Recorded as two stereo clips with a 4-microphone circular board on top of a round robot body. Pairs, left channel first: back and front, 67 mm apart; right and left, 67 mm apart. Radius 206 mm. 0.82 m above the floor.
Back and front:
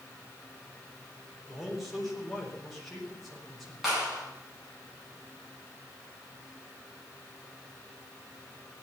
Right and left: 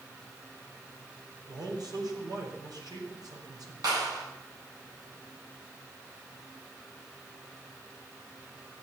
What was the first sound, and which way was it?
A man speaking, 90° left.